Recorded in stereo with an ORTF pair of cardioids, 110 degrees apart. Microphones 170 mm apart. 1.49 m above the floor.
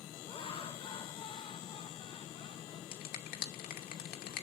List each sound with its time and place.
0.3 s laughter: 35° left, 1.8 m
2.9 s a finger snap: 70° left, 2.5 m